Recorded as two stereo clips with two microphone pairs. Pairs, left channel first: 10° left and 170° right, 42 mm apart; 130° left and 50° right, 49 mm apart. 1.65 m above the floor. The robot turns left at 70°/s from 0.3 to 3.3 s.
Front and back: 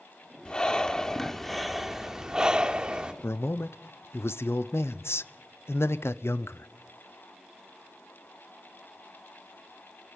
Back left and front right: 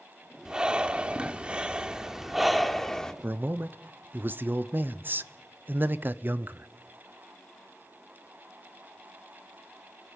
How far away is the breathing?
About 1.3 m.